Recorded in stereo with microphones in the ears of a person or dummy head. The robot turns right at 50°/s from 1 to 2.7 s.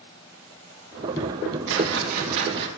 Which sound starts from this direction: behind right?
A whoosh, at 1.7 s.